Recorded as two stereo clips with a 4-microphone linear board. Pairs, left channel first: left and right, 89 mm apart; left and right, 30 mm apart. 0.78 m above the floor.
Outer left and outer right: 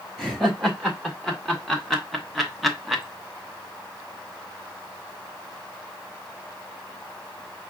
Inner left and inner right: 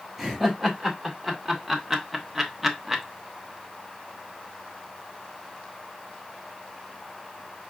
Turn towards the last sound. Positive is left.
turn(degrees=-5)  # may be behind; listen again after turning